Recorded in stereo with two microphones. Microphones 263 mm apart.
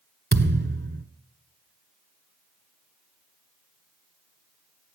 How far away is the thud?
About 1.0 m.